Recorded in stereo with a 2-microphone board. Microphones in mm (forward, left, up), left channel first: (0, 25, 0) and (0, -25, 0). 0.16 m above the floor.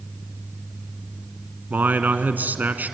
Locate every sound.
1.7 s a man speaking: 40° right (ahead or behind), 1.3 m